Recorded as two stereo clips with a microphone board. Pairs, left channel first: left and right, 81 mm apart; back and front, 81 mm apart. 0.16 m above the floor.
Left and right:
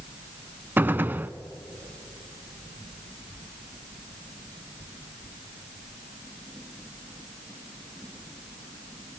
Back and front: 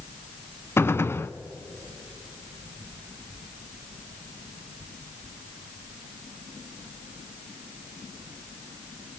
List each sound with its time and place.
0.8 s a gunshot: 140° right, 0.6 m